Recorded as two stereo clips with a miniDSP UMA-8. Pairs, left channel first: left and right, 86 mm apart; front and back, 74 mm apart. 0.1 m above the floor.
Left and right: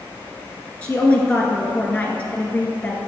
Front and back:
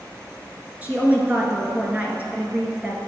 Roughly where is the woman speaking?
Behind left.